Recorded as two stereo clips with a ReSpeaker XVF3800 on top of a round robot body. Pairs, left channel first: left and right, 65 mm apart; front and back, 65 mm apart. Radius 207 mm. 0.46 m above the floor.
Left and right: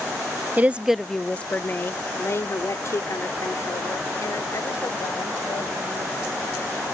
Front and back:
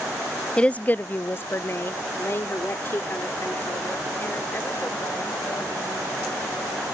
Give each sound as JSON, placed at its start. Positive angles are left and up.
{"t": 0.6, "sound": "a woman speaking", "azimuth_deg": -60}